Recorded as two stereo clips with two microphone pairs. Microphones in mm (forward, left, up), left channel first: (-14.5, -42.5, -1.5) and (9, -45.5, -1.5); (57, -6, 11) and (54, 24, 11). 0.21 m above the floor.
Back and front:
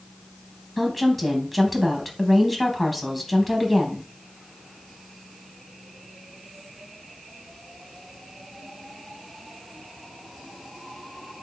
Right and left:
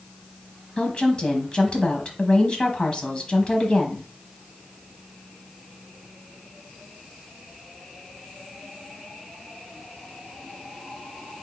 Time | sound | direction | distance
0.8 | a woman speaking | 100° right | 1.1 m